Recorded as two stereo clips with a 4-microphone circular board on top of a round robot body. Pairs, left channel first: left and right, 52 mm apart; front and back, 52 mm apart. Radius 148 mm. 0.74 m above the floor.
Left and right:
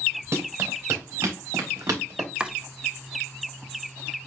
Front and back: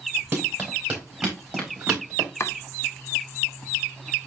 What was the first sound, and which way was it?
Running footsteps, 120° right.